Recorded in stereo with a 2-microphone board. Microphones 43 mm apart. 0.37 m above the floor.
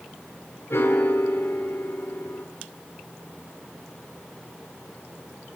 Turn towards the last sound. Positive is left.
turn(degrees=70)  # may be behind; listen again after turning